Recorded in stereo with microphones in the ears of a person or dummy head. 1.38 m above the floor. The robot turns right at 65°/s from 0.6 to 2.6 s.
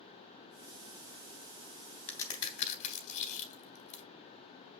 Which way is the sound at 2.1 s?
15° left (ahead or behind).